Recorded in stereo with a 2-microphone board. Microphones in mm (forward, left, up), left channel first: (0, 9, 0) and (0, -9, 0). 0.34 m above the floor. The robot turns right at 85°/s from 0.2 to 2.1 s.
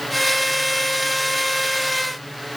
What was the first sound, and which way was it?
Only background noise.